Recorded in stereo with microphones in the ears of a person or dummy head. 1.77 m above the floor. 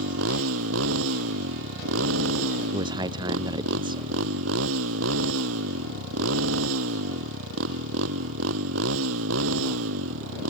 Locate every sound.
0.0 s a motorcycle: 85° right
2.7 s a man speaking: 25° right (ahead or behind)